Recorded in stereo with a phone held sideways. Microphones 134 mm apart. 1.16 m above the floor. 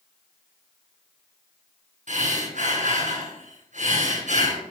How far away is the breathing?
About 6.5 m.